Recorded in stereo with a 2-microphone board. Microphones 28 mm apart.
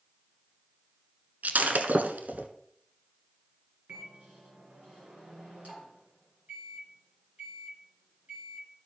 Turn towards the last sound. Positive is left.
turn(degrees=-70)  # may be behind; listen again after turning